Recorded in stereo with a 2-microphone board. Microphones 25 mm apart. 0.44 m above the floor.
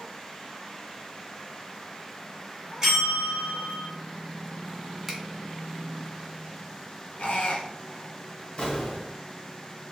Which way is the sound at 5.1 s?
Centre (ahead or behind).